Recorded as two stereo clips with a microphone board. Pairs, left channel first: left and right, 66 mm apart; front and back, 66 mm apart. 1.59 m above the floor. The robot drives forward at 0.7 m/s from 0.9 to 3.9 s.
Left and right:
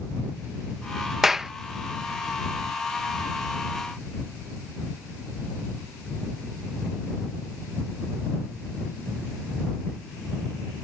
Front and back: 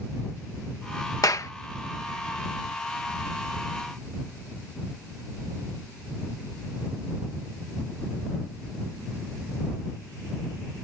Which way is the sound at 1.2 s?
5° right.